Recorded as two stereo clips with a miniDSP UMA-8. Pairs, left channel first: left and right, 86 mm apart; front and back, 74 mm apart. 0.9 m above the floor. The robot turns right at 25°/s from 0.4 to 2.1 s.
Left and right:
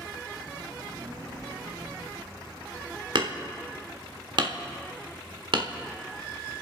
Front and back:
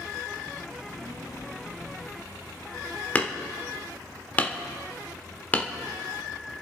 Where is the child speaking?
55° right, 7.5 m; by 3.0 s 20° right, 7.5 m.